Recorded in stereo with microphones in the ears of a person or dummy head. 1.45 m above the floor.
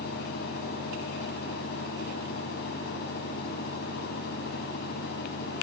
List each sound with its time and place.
0.0 s a fan: 60° left (ahead or behind)